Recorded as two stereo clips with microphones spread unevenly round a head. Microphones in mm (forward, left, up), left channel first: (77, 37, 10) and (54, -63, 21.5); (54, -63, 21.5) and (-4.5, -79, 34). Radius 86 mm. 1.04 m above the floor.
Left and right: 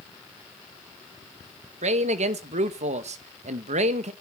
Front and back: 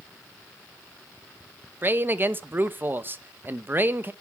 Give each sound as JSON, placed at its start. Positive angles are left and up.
{"t": 1.8, "sound": "a man speaking", "azimuth_deg": -105, "distance_m": 1.0}